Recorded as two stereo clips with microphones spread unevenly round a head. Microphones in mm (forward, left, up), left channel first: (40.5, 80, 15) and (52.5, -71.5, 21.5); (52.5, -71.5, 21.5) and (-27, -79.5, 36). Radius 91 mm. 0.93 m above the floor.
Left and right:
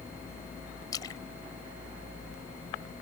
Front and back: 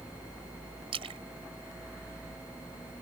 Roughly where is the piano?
I don't hear a piano.